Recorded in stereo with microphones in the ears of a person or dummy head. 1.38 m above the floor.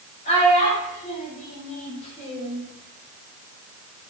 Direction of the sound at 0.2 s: 35° left (ahead or behind).